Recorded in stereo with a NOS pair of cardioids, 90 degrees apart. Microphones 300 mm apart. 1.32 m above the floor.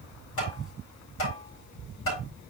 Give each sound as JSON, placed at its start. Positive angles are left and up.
{"t": 0.4, "sound": "tapping", "azimuth_deg": 45, "distance_m": 8.0}